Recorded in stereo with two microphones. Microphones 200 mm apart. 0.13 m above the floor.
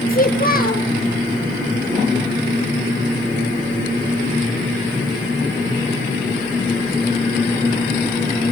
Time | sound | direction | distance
0.1 | a child speaking | 45° left (ahead or behind) | 1.5 m